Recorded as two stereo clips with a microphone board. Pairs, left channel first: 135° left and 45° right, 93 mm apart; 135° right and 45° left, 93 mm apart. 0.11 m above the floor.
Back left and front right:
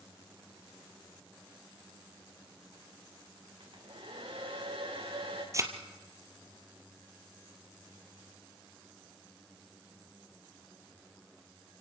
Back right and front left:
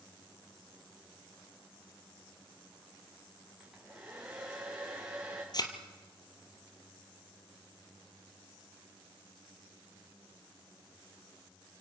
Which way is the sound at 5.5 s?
100° right.